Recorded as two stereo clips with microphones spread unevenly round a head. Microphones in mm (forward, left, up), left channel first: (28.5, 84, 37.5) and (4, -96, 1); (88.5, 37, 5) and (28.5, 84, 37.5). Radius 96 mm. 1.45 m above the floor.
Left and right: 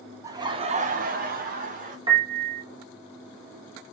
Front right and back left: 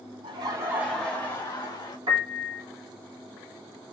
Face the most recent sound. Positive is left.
turn(degrees=-170)